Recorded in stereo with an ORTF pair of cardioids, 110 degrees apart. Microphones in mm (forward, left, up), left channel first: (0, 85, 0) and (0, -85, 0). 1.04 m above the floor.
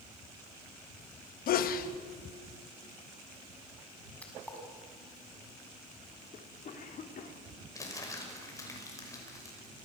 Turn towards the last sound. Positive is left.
turn(degrees=20)